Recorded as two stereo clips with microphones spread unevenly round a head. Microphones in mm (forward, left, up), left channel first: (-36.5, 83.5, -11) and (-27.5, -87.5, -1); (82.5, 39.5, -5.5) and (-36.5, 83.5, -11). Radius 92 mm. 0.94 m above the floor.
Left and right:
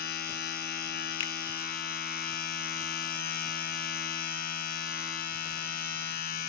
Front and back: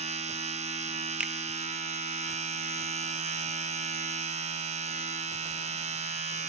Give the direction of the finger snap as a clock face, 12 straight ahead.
9 o'clock.